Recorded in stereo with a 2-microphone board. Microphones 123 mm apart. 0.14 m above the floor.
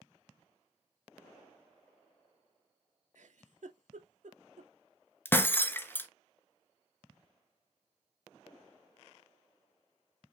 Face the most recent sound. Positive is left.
turn(degrees=20)  # may be behind; listen again after turning